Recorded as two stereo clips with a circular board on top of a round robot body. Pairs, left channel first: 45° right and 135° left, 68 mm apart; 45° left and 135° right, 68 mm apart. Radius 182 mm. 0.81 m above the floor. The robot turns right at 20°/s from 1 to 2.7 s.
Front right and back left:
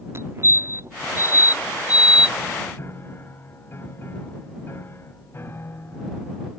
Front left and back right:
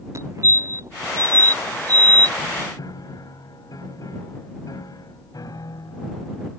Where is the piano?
10° left.